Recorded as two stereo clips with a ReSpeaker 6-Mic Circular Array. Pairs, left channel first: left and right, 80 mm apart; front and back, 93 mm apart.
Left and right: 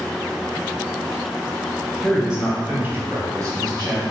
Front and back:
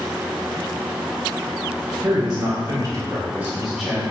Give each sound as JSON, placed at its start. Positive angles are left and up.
{"t": 2.0, "sound": "a man speaking", "azimuth_deg": -175, "distance_m": 1.9}